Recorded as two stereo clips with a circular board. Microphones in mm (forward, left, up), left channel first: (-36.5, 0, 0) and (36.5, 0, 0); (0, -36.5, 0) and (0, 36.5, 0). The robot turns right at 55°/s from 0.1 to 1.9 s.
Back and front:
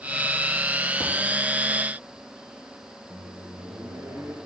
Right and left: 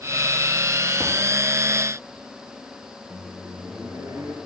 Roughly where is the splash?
Behind.